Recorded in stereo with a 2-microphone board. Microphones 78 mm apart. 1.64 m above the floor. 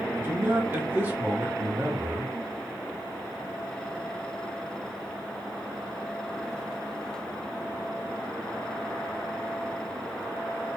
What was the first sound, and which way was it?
A man speaking, 25° right (ahead or behind).